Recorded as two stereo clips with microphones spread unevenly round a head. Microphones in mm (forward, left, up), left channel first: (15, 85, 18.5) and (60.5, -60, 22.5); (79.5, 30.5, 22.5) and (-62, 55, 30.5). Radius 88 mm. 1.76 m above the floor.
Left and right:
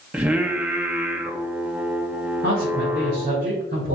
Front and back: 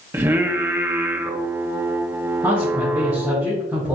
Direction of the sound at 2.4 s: 115° right.